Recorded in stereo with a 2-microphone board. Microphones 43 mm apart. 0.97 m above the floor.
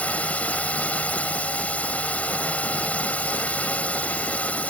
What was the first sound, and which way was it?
A drone, 35° left (ahead or behind).